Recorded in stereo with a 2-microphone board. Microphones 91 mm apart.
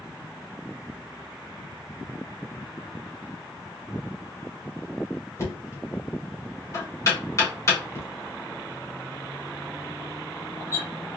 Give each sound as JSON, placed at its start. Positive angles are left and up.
{"t": 5.4, "sound": "knocking", "side_deg": 35, "distance_m": 1.7}